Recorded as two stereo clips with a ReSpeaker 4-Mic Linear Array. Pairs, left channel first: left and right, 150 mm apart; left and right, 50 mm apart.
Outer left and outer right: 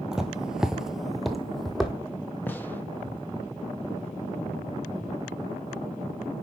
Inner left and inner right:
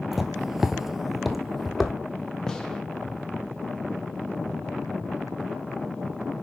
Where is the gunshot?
10° left (ahead or behind), 1.2 m.